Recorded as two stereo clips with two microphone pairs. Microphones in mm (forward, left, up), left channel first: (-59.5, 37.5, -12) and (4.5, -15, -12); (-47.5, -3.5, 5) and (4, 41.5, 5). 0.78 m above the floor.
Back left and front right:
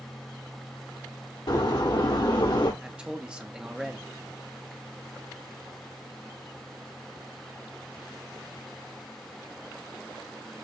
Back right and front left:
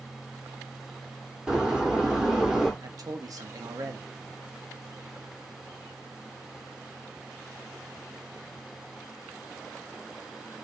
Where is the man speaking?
40° left, 0.8 m.